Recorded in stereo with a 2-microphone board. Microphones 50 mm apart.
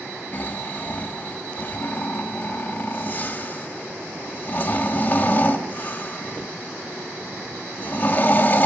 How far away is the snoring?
About 1.0 m.